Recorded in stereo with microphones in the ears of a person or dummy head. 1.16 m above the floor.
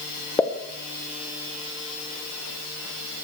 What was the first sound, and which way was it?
A pop, 15° left (ahead or behind).